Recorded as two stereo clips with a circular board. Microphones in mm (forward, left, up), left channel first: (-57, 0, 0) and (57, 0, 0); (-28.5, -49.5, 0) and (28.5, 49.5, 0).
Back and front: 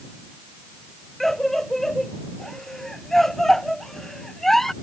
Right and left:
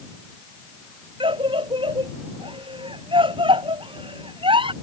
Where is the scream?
95° left.